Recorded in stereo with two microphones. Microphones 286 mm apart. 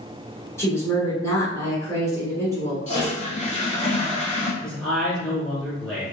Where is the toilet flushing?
25° left (ahead or behind), 0.7 m.